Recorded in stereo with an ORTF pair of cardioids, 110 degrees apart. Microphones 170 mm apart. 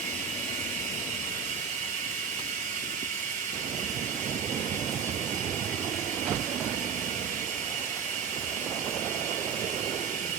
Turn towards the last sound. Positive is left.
turn(degrees=-50)